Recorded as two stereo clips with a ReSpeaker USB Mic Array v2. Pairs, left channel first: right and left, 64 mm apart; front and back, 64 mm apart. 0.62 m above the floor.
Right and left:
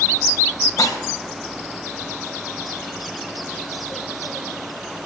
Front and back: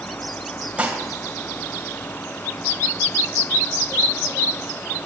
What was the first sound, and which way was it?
Dishes clattering, 110° right.